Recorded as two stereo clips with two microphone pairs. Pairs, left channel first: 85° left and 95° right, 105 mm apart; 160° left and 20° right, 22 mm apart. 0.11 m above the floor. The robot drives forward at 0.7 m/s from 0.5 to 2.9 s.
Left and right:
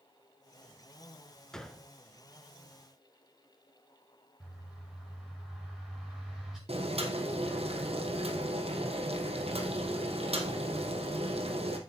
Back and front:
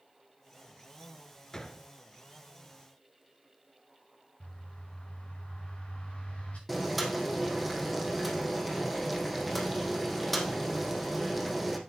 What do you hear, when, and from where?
1.5 s a gunshot: 160° left, 1.1 m; by 1.9 s 165° left, 1.2 m
4.4 s a bird: straight behind, 7 m
6.7 s boiling: 105° right, 2.5 m